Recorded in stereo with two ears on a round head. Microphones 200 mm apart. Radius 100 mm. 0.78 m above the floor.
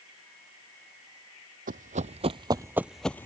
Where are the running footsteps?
40° right (ahead or behind); by 3.2 s 10° left (ahead or behind).